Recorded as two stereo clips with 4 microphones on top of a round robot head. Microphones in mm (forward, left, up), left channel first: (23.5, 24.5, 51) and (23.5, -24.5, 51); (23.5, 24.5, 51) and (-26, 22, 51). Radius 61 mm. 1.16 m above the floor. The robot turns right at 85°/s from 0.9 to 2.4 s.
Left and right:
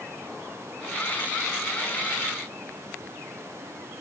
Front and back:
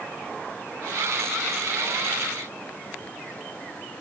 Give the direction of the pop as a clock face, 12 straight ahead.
I don't hear a pop.